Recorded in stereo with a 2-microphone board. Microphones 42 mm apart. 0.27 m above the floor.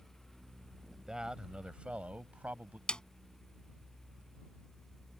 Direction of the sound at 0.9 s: 15° right (ahead or behind).